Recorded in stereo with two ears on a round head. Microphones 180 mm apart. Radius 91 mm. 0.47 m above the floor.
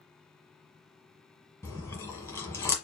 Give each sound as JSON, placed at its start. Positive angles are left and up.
{"t": 1.6, "sound": "chewing", "side_deg": 15, "distance_m": 1.4}